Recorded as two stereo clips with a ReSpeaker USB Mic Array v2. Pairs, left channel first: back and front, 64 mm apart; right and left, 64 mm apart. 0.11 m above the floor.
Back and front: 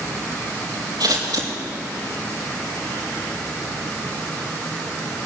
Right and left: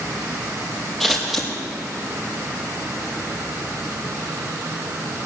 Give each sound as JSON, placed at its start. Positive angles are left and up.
{"t": 1.0, "sound": "scissors", "azimuth_deg": 0, "distance_m": 5.0}